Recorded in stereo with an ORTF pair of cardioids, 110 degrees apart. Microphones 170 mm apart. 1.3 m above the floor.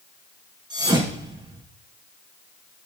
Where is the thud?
25° right, 5 m.